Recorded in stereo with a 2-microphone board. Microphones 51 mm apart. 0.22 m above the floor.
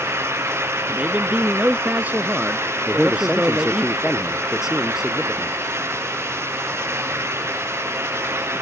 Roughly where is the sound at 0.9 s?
Right.